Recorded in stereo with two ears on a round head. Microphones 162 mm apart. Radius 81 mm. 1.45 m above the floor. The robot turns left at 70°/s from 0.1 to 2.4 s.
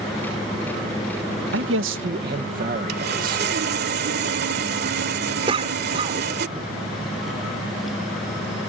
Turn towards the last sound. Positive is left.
turn(degrees=-30)  # may be behind; listen again after turning